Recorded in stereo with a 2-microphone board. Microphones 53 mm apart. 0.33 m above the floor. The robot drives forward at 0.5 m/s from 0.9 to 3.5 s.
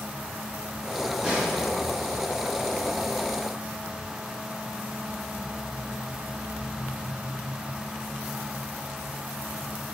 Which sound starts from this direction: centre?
A snare drum, at 1.2 s.